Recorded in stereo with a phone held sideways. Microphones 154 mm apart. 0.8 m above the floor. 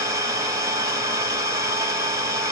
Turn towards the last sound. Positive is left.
turn(degrees=-20)  # may be behind; listen again after turning